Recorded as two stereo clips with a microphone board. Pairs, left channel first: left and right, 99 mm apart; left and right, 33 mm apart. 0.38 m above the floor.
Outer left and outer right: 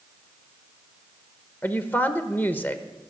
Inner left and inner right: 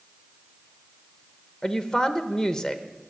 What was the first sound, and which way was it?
A woman speaking, 20° left (ahead or behind).